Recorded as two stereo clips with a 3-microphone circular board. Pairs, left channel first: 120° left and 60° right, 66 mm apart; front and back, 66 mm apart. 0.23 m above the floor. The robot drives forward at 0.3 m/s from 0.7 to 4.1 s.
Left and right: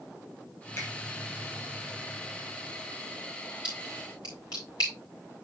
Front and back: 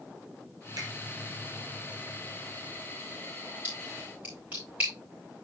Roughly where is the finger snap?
Behind.